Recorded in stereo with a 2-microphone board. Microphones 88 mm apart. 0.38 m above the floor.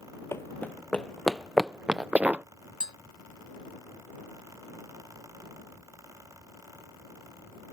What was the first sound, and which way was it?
Running footsteps, 30° left (ahead or behind).